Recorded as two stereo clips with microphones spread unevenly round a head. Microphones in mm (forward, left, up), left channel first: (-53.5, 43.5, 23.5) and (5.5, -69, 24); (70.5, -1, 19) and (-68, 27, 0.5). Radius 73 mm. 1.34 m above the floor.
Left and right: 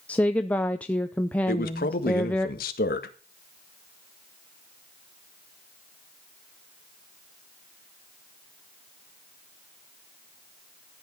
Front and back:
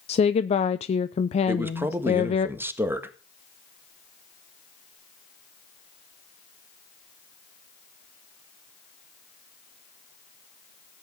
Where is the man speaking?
95° left, 1.6 m.